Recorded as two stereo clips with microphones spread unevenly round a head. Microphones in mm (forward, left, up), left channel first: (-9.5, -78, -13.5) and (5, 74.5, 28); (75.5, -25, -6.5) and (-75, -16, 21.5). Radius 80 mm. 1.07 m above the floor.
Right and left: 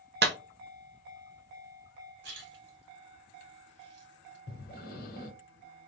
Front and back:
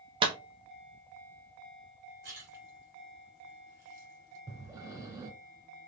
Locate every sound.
0.2 s a clap: 115° left, 0.9 m
2.2 s a splash: 110° left, 2 m
4.5 s breathing: 130° right, 1.2 m